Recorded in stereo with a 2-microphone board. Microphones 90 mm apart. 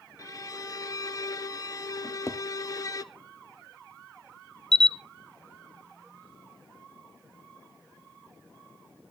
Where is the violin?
40° left (ahead or behind), 0.5 m.